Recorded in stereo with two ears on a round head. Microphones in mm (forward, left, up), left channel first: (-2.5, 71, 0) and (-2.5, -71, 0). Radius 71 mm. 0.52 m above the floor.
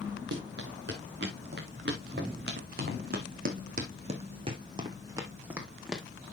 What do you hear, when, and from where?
0.3 s running footsteps: 85° right, 4 m; by 6.0 s centre (ahead or behind), 2 m